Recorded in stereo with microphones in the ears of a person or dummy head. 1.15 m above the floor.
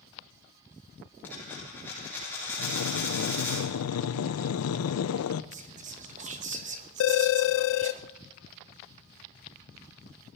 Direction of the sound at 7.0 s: 70° left (ahead or behind).